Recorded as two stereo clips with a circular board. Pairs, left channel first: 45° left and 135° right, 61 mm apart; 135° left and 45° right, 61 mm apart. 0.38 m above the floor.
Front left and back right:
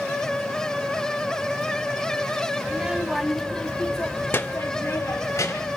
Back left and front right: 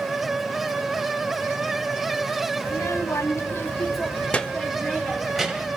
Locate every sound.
2.6 s a child speaking: 155° left, 0.9 m; by 5.8 s 40° left, 1.3 m